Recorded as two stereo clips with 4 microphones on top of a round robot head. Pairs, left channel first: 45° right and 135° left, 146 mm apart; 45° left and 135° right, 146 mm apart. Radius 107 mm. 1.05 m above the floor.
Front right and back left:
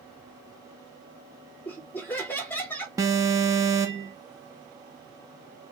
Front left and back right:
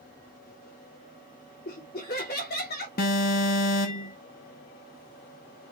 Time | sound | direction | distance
1.6 | laughter | 35° left | 2.5 m
3.0 | an alarm | 70° left | 0.9 m